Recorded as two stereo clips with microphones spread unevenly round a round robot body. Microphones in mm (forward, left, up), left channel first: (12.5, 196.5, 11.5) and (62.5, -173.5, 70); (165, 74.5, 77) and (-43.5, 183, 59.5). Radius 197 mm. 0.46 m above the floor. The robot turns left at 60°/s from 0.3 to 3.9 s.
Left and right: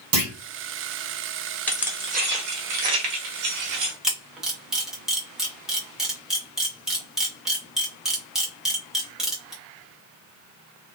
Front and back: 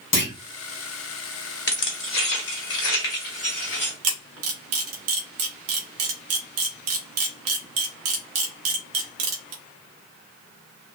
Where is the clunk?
30° right, 1.3 m; by 0.3 s 35° right, 1.3 m.